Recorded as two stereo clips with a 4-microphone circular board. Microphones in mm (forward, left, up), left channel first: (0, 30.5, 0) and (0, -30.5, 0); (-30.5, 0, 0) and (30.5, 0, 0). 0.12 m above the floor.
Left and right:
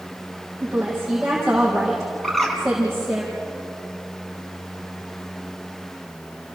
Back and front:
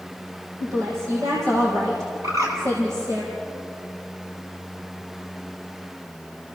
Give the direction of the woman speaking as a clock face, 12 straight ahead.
12 o'clock.